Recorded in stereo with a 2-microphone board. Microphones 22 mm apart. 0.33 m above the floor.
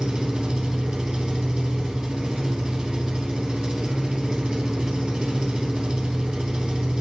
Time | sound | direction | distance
0.0 | an engine running | 40° right (ahead or behind) | 2.5 m